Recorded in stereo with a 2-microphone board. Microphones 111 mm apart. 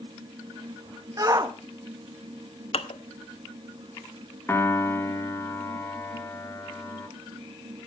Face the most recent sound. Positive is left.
turn(degrees=20)  # may be behind; listen again after turning